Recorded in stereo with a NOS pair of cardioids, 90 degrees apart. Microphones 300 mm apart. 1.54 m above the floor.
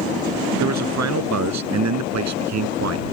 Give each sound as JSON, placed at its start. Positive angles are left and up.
{"t": 0.6, "sound": "a man speaking", "azimuth_deg": -65}